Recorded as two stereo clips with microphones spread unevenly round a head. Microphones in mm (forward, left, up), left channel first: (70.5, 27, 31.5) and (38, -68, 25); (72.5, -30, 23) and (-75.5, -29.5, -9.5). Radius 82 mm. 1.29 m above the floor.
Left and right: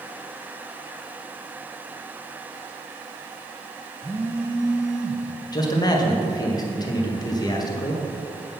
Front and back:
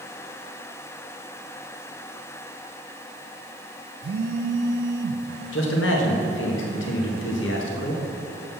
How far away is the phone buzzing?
About 0.6 m.